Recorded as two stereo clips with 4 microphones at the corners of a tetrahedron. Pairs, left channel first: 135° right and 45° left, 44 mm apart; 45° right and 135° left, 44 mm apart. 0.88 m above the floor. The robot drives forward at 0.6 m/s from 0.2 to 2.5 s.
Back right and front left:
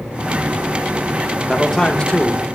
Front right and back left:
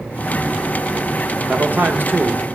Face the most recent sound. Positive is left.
turn(degrees=160)